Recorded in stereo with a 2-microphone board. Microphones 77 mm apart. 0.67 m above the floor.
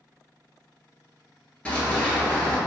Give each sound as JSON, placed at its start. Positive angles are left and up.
{"t": 1.6, "sound": "running footsteps", "side_deg": 15, "distance_m": 0.7}